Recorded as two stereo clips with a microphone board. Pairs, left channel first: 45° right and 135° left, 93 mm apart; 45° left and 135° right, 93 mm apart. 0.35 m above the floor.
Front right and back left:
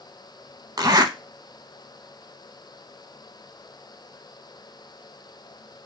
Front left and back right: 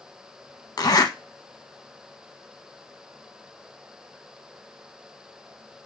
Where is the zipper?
90° left, 0.5 m.